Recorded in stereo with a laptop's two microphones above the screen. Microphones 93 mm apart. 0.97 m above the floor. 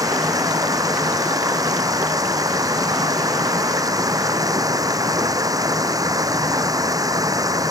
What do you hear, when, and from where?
0.0 s running water: 40° right (ahead or behind)